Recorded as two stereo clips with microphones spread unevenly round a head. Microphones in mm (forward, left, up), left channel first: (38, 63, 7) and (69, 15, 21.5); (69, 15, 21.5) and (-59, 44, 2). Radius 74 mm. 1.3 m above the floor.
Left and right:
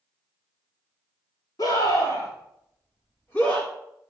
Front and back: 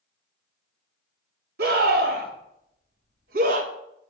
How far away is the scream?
About 3.5 m.